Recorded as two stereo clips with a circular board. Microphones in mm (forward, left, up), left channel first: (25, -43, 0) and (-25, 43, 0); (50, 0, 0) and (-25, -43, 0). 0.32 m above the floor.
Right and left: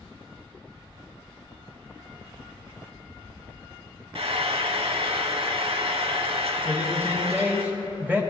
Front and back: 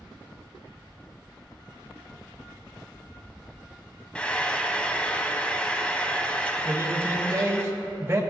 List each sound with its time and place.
4.2 s frying: 105° left, 0.6 m
6.7 s a man speaking: straight behind, 1.4 m